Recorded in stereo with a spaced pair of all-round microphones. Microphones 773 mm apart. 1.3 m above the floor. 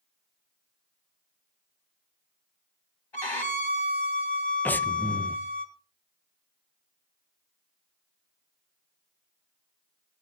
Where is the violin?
35° left (ahead or behind), 2 m.